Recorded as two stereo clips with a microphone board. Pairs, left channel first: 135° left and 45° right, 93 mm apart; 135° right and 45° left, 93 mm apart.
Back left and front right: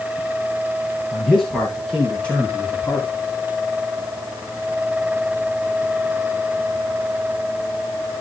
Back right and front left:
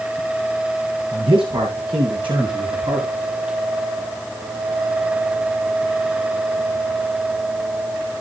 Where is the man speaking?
45° left, 6 m; by 3.1 s 70° left, 4 m.